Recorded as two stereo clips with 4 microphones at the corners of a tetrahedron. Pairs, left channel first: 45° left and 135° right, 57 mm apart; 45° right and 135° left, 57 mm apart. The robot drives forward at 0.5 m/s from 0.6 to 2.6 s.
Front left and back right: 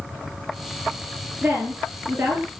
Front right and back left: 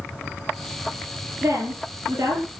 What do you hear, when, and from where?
1.4 s a woman speaking: 170° left, 9 m